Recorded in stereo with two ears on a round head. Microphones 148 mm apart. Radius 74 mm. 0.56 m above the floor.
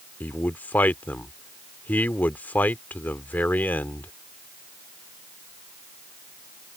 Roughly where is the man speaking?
Centre.